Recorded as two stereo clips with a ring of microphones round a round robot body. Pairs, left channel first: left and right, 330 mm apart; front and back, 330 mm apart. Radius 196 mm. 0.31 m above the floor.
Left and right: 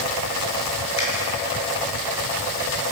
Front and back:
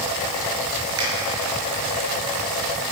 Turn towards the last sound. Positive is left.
turn(degrees=130)